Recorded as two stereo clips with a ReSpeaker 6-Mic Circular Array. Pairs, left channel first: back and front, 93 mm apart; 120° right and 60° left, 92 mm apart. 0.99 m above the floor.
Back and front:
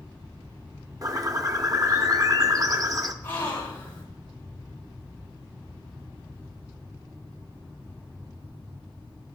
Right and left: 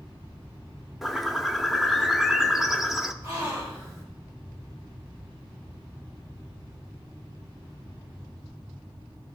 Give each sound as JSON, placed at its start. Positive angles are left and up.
{"t": 1.0, "sound": "a bird", "azimuth_deg": -25, "distance_m": 0.6}
{"t": 3.2, "sound": "a gasp", "azimuth_deg": 105, "distance_m": 3.0}